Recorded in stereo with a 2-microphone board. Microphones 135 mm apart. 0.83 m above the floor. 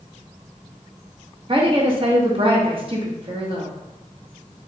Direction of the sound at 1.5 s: 40° right (ahead or behind).